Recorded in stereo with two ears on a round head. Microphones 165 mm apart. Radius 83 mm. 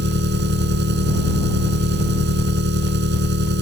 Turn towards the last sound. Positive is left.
turn(degrees=-65)  # may be behind; listen again after turning